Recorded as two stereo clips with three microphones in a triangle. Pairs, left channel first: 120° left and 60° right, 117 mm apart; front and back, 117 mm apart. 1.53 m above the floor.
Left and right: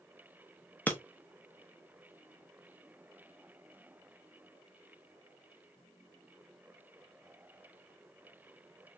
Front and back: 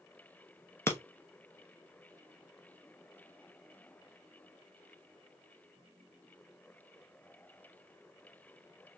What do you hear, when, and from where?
0.9 s breaking glass: 55° left, 0.8 m